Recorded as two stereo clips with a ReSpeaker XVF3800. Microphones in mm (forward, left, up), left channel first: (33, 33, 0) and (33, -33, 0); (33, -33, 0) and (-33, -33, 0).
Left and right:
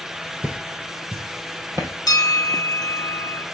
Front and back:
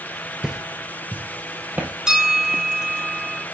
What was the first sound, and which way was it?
Footsteps, 130° right.